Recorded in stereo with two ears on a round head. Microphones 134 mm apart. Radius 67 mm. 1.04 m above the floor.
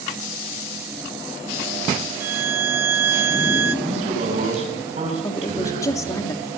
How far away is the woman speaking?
About 1.9 m.